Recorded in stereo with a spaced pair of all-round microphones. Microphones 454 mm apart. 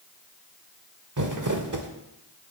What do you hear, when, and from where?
1.2 s crumpling: 40° right (ahead or behind), 0.9 m